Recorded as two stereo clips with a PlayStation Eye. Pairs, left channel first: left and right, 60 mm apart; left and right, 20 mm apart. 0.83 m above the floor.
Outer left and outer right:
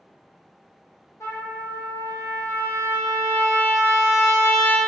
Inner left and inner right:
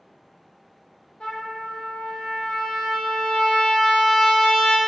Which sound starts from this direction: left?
A trumpet, at 1.2 s.